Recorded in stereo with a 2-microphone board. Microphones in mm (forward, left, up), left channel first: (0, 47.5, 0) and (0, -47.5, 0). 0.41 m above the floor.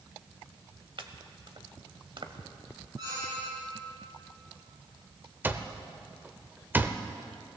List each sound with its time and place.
1.0 s chopping: 65° right (ahead or behind), 1.0 m
3.0 s a squeak: 45° right (ahead or behind), 6 m
5.4 s an alarm clock: 20° right (ahead or behind), 0.7 m